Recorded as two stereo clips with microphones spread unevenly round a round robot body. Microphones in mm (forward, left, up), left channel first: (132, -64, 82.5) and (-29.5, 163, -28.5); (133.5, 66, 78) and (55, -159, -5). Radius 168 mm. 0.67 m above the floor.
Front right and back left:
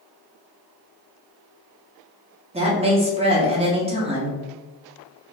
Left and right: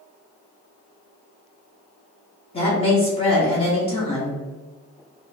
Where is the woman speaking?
150° left, 0.6 m.